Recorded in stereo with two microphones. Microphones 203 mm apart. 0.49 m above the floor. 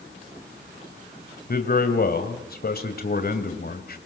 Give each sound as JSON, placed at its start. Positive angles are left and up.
{"t": 1.5, "sound": "a man speaking", "side_deg": 50, "distance_m": 2.5}